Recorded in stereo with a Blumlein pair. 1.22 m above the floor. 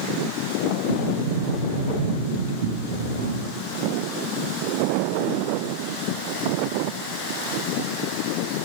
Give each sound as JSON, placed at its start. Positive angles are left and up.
{"t": 0.9, "sound": "a sliding door", "azimuth_deg": -55, "distance_m": 0.7}